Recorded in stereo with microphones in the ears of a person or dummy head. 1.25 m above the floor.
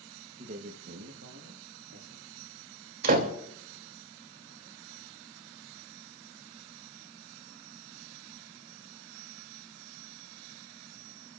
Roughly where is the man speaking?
Right.